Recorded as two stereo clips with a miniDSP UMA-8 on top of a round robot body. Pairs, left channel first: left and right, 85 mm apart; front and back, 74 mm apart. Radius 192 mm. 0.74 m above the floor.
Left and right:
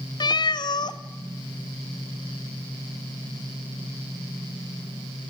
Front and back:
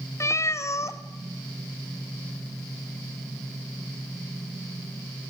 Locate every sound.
0.2 s a cat meowing: 55° left, 0.6 m